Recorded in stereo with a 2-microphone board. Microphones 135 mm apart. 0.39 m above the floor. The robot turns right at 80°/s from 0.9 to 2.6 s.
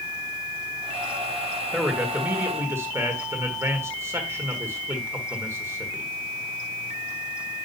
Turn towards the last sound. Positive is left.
turn(degrees=-20)  # may be behind; listen again after turning